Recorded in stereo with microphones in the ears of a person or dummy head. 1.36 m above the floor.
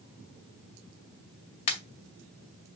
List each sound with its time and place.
1.7 s a pop: 35° left (ahead or behind), 2.0 m